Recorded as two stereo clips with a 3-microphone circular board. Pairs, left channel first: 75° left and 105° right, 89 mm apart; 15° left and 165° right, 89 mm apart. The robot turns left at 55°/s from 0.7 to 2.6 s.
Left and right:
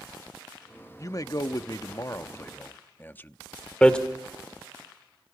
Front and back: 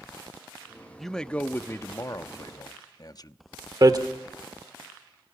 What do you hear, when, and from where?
1.0 s a man speaking: 105° left, 0.6 m; by 3.4 s 15° left, 0.6 m
3.8 s hammering: 155° left, 1.3 m